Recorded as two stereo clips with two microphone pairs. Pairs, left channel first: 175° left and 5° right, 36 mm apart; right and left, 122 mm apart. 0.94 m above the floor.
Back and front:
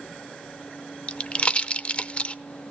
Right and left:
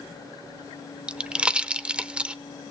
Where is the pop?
160° left, 0.7 m.